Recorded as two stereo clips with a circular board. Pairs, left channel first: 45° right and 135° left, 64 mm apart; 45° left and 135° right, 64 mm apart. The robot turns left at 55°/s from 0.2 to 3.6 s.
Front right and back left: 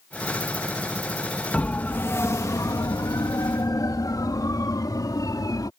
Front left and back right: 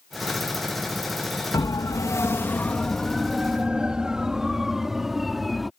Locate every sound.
1.5 s a siren: 30° left; by 5.7 s 45° right